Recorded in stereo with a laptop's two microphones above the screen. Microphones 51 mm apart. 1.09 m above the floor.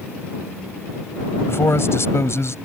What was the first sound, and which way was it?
A man speaking, 55° left (ahead or behind).